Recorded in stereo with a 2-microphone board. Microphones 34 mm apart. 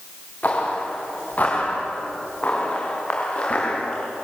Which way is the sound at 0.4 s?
45° left (ahead or behind).